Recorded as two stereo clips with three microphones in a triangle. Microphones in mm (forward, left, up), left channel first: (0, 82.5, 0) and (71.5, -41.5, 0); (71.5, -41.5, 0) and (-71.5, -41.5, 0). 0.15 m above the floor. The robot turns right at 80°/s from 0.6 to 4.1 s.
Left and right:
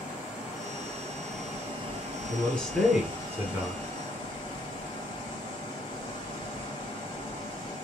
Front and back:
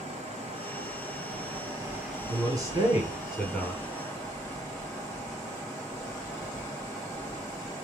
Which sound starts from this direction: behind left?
Running water, at 0.0 s.